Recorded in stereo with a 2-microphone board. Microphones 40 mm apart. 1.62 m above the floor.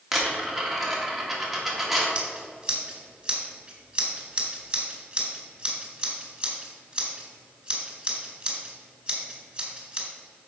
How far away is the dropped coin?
About 1.6 m.